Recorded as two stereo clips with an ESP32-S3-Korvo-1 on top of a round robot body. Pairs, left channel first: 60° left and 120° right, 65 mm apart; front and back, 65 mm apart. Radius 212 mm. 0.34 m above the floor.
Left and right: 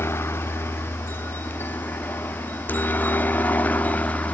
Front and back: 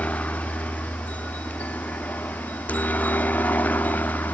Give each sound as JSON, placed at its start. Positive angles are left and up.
{"t": 0.0, "sound": "a helicopter", "azimuth_deg": 55}